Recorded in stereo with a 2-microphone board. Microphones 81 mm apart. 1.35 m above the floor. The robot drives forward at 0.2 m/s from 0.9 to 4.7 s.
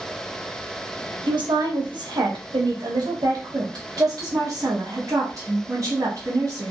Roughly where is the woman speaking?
Right.